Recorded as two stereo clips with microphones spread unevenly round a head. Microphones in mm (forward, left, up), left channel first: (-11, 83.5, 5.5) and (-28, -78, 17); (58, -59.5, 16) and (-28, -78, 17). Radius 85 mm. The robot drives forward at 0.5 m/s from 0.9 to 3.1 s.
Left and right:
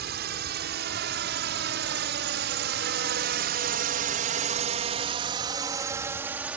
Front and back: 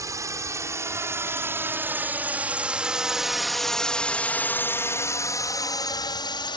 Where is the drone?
115° right; by 6.6 s 10° right.